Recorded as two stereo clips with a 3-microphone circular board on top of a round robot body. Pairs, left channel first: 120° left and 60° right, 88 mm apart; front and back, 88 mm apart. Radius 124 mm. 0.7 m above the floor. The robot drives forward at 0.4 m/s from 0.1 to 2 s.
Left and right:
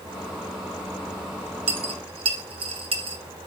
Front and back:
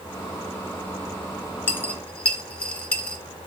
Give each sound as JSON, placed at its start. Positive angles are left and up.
{"t": 1.7, "sound": "a dropped coin", "azimuth_deg": -70, "distance_m": 1.1}